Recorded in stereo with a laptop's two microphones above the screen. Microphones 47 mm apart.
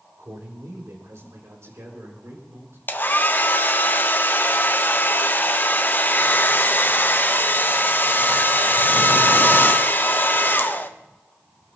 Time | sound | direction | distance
0.2 | a man speaking | 75° right (ahead or behind) | 4.5 m
2.9 | a hair dryer | 45° left (ahead or behind) | 0.8 m